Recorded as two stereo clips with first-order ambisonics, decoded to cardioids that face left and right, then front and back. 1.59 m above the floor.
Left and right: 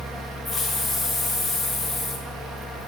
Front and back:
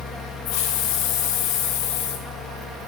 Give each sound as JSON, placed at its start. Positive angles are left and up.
{"t": 0.5, "sound": "a hiss", "azimuth_deg": 10, "distance_m": 0.9}